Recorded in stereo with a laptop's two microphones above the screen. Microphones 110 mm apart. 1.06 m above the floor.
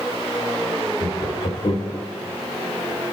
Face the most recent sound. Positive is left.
turn(degrees=70)  # may be behind; listen again after turning